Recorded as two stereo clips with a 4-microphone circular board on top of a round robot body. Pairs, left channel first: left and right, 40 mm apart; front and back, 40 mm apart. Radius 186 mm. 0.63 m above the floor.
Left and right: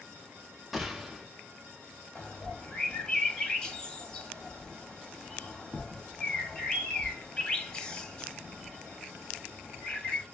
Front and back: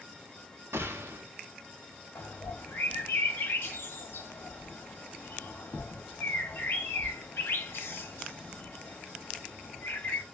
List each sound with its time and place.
0.7 s a gunshot: 175° right, 0.6 m
2.1 s a bird: 25° left, 0.9 m